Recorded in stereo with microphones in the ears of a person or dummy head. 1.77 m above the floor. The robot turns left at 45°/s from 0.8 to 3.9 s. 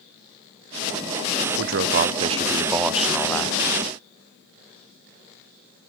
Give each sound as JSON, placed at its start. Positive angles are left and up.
{"t": 1.6, "sound": "a man speaking", "azimuth_deg": -110, "distance_m": 0.6}